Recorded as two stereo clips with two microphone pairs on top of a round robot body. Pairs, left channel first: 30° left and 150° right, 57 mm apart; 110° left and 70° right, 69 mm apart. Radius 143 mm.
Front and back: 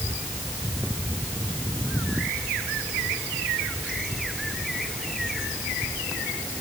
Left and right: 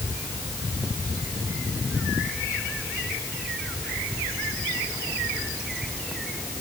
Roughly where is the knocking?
No knocking in this recording.